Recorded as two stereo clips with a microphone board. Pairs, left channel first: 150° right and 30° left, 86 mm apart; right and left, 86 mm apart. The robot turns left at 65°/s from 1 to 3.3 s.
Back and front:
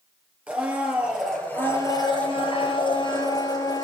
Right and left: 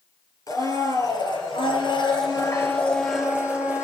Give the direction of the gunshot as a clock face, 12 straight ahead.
No gunshot in this recording.